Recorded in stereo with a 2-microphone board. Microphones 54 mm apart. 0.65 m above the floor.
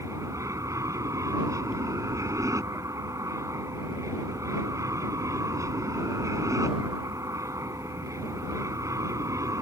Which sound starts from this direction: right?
An aircraft, at 0.0 s.